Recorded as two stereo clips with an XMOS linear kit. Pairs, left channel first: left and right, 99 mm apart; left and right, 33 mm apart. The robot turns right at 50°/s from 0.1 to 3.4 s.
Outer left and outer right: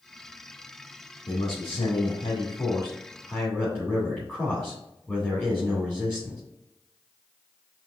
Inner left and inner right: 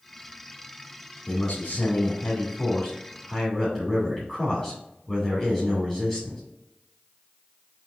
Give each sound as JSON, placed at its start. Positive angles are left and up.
{"t": 1.3, "sound": "a man speaking", "azimuth_deg": 75, "distance_m": 2.0}